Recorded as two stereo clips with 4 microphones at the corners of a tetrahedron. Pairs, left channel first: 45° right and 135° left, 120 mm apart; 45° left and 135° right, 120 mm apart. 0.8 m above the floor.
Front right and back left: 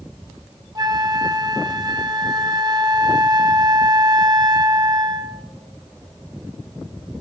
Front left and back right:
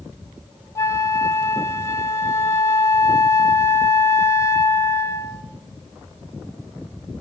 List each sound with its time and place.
0.8 s a flute: 100° left, 0.6 m